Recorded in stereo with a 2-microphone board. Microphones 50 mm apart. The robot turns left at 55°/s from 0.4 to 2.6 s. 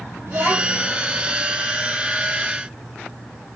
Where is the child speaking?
85° right, 6 m; by 0.9 s 65° right (ahead or behind), 6 m.